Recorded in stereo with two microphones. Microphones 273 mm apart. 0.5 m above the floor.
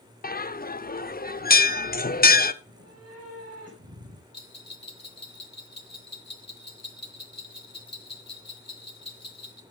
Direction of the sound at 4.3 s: 65° left (ahead or behind).